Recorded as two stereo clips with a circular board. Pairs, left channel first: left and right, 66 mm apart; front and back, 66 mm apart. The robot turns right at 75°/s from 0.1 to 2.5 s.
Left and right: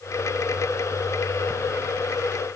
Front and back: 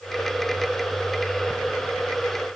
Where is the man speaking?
No man speaking in this recording.